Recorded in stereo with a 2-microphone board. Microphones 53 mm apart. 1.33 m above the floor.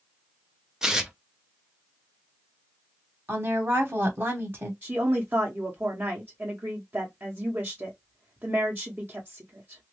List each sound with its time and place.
0.8 s tearing paper: 10° right (ahead or behind), 0.7 m
3.3 s a woman speaking: 45° right (ahead or behind), 1.2 m
4.8 s a woman speaking: 40° right (ahead or behind), 0.9 m